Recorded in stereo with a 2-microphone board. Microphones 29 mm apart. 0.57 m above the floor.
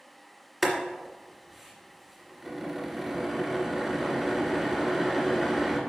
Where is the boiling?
Centre (ahead or behind), 2 m.